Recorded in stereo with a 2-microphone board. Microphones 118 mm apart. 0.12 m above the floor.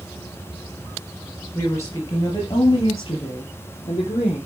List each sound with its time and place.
1.6 s a woman speaking: 20° left (ahead or behind), 2 m; by 4.4 s 50° left (ahead or behind), 5 m